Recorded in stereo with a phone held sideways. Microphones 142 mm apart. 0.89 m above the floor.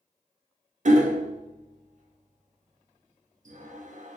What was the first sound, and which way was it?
Hammering, 60° right (ahead or behind).